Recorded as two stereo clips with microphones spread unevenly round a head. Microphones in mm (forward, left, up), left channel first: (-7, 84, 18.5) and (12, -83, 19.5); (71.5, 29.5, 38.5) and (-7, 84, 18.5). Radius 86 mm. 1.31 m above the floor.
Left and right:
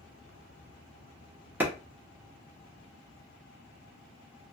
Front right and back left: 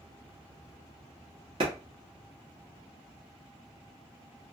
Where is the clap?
165° right, 0.9 m.